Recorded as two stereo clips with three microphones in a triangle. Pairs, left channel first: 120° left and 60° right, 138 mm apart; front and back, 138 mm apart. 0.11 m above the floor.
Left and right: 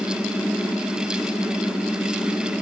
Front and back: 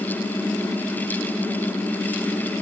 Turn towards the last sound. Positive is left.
No sound to turn to.